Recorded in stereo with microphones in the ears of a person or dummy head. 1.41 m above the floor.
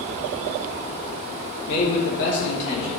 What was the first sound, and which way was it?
A man speaking, 65° left (ahead or behind).